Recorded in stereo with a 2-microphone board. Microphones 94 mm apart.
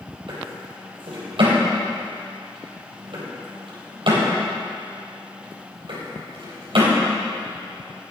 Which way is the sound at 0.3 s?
65° right (ahead or behind).